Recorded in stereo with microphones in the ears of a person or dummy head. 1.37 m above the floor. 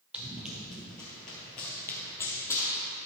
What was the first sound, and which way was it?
Running footsteps, 5° right (ahead or behind).